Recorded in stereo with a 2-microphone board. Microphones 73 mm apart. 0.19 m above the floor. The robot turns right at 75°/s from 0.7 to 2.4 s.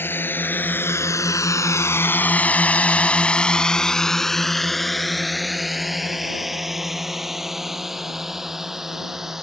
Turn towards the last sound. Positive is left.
turn(degrees=-5)  # may be behind; listen again after turning